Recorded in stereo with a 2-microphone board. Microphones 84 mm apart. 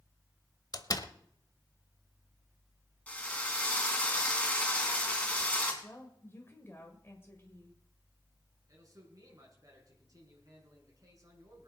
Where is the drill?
15° left (ahead or behind), 3 m.